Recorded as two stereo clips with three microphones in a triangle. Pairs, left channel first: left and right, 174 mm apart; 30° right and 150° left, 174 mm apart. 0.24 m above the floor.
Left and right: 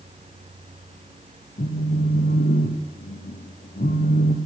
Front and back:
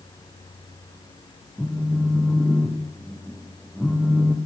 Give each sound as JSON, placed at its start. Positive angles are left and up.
{"t": 1.6, "sound": "a phone buzzing", "azimuth_deg": 55, "distance_m": 3.0}